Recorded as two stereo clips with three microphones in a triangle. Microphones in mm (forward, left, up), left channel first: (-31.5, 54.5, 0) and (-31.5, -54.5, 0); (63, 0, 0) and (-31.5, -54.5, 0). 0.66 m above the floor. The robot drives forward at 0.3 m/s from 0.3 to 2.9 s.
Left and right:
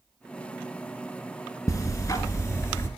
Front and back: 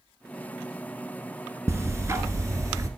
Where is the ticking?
145° left, 1.6 m; by 2.9 s 155° left, 1.9 m.